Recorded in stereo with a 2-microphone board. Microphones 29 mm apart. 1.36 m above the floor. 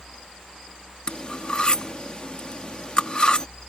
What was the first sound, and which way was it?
Cutlery clinking, 35° left (ahead or behind).